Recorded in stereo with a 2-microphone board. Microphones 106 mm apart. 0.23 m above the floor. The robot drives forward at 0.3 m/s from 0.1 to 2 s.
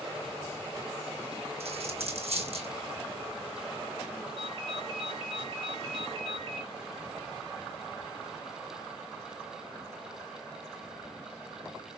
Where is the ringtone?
65° right (ahead or behind), 2.5 m.